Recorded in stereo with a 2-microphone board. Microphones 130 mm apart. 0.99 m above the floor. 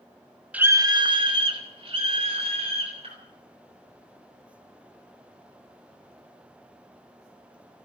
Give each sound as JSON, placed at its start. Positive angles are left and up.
{"t": 0.5, "sound": "a scream", "side_deg": -10, "distance_m": 0.7}